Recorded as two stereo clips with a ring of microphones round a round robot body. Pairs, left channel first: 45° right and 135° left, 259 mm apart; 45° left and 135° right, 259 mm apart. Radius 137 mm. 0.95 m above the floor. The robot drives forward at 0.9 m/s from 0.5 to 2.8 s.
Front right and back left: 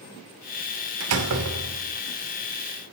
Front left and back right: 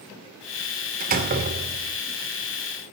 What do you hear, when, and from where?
1.0 s a door slam: 165° left, 2.5 m; by 2.0 s 170° left, 3.5 m